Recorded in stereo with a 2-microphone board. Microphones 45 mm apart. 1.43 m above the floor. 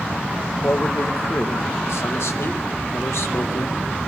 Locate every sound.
0.6 s a man speaking: 70° left (ahead or behind), 1.3 m